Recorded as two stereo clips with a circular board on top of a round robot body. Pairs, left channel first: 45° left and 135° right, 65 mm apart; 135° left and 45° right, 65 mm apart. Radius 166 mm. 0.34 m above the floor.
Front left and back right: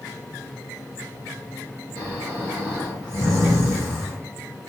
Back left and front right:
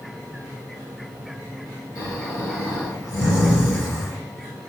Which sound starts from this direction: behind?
Snoring, at 1.9 s.